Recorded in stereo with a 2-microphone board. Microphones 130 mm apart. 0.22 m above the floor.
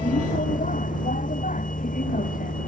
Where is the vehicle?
70° left (ahead or behind); by 2.7 s 75° left (ahead or behind).